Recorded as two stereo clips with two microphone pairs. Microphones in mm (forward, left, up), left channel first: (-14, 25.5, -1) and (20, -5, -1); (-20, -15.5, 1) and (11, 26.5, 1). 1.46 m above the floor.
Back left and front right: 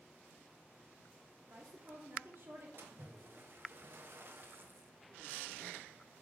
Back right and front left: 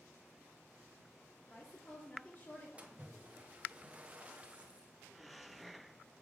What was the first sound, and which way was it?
A woman speaking, 70° right.